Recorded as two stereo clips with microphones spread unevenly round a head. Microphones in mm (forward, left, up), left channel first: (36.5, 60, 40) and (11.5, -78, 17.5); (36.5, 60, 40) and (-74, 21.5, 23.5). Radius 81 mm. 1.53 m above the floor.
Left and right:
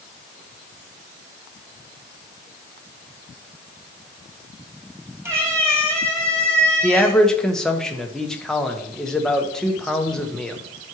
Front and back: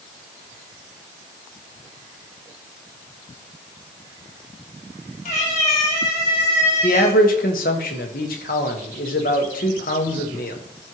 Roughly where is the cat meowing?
Ahead right.